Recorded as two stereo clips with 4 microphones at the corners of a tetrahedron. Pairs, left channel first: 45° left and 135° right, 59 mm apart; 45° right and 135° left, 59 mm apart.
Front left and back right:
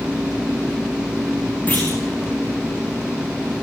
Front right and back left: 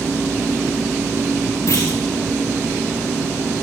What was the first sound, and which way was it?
A clunk, 15° right.